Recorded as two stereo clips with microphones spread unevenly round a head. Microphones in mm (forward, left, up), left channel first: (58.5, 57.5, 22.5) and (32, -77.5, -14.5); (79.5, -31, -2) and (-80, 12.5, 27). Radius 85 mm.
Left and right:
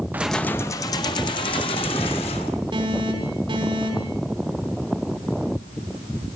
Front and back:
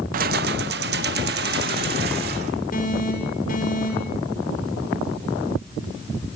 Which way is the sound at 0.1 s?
170° left.